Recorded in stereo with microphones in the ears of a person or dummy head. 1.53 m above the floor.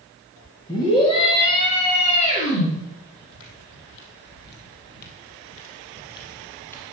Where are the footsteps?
70° left (ahead or behind), 4 m; by 6.8 s 10° left (ahead or behind), 2.5 m.